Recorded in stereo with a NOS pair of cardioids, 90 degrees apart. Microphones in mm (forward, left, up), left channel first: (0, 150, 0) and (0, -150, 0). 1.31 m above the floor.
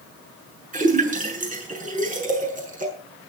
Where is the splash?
25° right, 7.5 m.